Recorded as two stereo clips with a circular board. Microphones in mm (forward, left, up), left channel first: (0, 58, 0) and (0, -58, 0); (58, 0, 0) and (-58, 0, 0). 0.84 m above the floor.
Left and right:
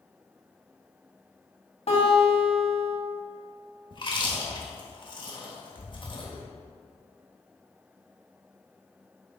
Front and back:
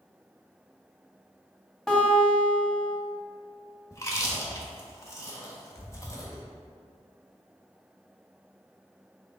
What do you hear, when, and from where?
1.9 s a guitar: 85° left, 1.9 m
3.9 s chewing: 55° left, 1.2 m